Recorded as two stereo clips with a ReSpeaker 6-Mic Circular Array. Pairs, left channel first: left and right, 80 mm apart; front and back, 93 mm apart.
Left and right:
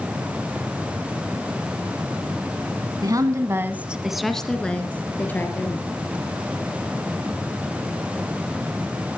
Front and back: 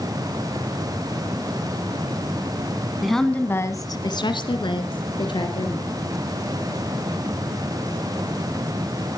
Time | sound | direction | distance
3.0 | a woman speaking | 95° right | 1.5 m